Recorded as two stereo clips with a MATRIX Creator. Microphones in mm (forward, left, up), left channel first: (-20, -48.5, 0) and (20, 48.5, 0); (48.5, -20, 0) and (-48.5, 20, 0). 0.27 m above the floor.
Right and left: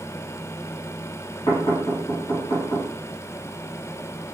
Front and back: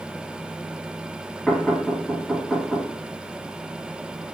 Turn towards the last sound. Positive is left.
turn(degrees=-105)